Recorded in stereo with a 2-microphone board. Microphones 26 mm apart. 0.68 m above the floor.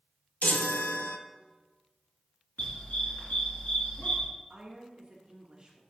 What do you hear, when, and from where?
0.4 s a chime: 80° left, 0.7 m
2.6 s a dog barking: 70° left (ahead or behind), 3 m
4.5 s a woman speaking: 35° right (ahead or behind), 1.1 m